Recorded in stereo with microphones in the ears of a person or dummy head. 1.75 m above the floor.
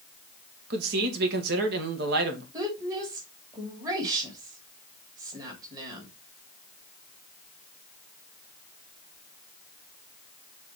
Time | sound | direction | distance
0.7 | a man speaking | 65° right (ahead or behind) | 2.5 m
2.5 | a woman speaking | 25° right (ahead or behind) | 3 m